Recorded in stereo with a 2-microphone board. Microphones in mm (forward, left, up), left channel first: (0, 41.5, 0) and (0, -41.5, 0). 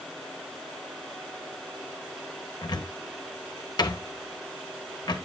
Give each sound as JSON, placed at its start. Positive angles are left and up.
{"t": 2.6, "sound": "a cupboard door", "side_deg": 65, "distance_m": 1.3}